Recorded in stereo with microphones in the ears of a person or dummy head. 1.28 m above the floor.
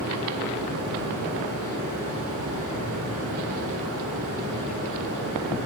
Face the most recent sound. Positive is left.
turn(degrees=-80)